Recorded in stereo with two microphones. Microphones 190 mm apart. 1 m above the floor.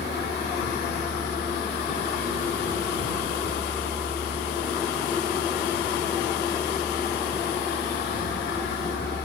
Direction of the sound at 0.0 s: 75° left (ahead or behind).